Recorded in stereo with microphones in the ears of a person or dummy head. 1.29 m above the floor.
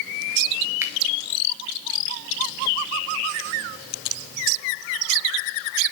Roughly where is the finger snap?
Centre.